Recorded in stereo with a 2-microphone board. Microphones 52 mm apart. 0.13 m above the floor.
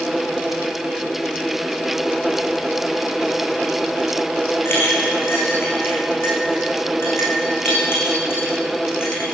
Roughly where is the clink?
Left.